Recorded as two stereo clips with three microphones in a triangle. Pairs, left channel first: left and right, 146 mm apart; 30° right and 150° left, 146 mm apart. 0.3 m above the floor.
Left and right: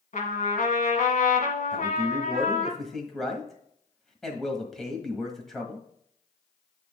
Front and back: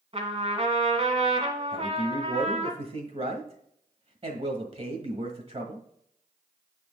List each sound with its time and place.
0.1 s a trumpet: 105° left, 1.6 m
1.7 s a man speaking: 175° left, 1.4 m